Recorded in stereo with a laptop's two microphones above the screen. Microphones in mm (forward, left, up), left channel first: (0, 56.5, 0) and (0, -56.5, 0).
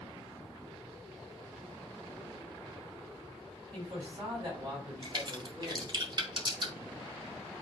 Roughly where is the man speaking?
Right.